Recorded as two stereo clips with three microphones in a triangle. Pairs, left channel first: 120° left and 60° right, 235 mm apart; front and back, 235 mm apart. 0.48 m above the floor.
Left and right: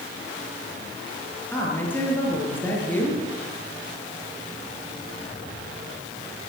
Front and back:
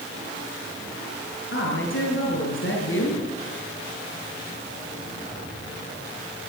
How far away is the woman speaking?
About 7 m.